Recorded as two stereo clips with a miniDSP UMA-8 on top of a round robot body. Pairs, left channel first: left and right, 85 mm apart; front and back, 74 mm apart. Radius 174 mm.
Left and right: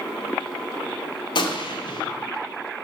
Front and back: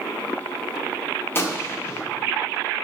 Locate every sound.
1.4 s a gunshot: 60° left, 1.7 m